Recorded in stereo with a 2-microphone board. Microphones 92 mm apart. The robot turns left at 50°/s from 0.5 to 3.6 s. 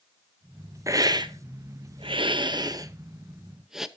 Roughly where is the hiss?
Right.